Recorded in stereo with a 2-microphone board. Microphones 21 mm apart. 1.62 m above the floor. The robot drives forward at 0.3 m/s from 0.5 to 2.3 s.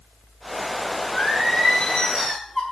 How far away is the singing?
About 5.5 m.